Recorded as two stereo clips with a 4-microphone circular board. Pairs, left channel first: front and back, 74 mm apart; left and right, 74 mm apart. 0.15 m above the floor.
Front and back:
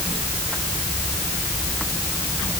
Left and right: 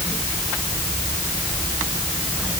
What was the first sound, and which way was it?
Only background noise.